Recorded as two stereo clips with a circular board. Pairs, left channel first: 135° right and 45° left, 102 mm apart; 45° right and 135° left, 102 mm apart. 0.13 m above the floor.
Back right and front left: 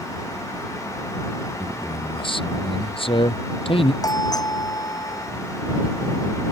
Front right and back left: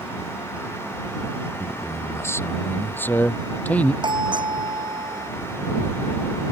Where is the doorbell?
175° left.